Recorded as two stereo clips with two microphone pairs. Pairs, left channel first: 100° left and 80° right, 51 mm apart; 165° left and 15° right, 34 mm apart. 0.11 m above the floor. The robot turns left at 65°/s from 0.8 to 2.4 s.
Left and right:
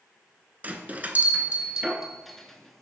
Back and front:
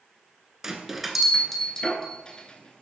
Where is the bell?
80° right, 0.7 m; by 2.8 s 175° left, 0.7 m.